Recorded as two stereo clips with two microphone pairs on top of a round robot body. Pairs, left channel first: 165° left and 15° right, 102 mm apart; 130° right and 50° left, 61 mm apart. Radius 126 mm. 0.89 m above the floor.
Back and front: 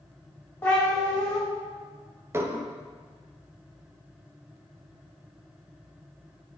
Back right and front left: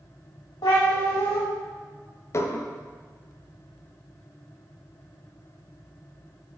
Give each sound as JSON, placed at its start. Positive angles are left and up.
{"t": 0.6, "sound": "a cat meowing", "azimuth_deg": -125, "distance_m": 1.0}
{"t": 2.3, "sound": "dishes clattering", "azimuth_deg": -85, "distance_m": 0.5}